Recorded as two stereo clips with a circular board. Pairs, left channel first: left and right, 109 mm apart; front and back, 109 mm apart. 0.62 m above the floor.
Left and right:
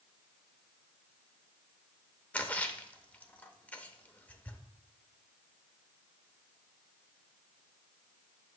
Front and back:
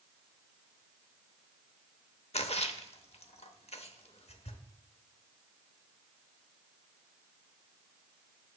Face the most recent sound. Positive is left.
turn(degrees=15)